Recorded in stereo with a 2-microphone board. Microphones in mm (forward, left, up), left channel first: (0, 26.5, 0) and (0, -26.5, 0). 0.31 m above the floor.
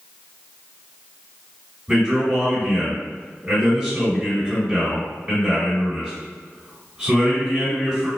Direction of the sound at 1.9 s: 15° right (ahead or behind).